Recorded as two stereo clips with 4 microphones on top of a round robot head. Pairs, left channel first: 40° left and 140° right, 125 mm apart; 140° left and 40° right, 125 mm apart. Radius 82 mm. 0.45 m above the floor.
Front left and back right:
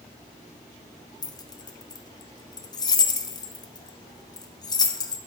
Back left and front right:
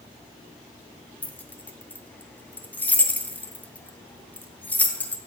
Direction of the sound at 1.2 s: 70° left.